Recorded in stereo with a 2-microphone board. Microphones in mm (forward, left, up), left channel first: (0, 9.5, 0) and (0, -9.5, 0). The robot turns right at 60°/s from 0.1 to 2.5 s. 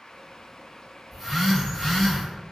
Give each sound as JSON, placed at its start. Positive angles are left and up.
{"t": 1.1, "sound": "a phone buzzing", "azimuth_deg": -5, "distance_m": 1.8}